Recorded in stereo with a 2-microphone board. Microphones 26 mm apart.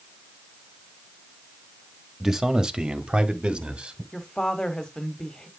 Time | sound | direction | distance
2.2 | a man speaking | 20° right (ahead or behind) | 1.7 m
4.1 | a woman speaking | 30° left (ahead or behind) | 1.3 m